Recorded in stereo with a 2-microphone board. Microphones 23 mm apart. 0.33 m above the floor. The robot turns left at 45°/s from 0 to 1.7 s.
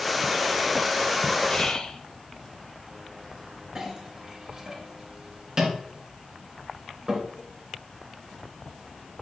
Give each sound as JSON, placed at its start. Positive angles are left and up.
{"t": 1.5, "sound": "whispering", "side_deg": 40, "distance_m": 1.2}
{"t": 3.8, "sound": "a clink", "side_deg": -30, "distance_m": 2.5}